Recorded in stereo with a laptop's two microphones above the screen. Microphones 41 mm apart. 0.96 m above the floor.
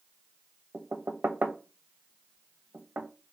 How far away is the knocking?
About 0.6 m.